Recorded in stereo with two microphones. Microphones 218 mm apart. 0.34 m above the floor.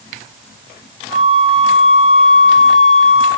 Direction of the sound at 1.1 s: 75° left (ahead or behind).